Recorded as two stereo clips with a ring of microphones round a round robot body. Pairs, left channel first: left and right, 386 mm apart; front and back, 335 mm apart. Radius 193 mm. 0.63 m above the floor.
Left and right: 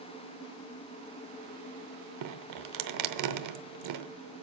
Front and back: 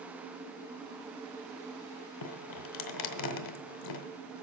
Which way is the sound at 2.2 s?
45° right.